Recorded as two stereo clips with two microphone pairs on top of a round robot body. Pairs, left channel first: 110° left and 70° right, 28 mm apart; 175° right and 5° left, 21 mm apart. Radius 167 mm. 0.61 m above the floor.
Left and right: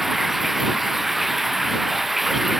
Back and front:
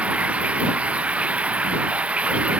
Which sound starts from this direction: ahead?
Running water, at 0.0 s.